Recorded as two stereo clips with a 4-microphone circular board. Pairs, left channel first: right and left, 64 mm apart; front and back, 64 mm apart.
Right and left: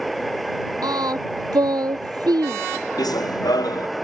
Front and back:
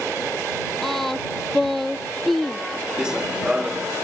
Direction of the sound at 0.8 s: 85° left.